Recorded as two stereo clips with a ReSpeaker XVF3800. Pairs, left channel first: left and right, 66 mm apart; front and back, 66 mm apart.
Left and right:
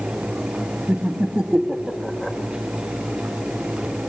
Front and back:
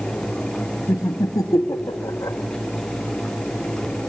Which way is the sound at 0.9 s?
25° right.